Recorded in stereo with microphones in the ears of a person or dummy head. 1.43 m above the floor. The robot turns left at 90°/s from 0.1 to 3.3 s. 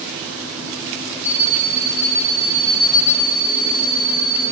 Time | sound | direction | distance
1.2 | an alarm clock | 170° left | 0.5 m